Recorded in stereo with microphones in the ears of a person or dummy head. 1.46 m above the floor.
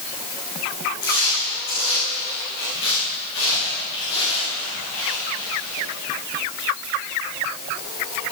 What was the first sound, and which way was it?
Footsteps, 65° left (ahead or behind).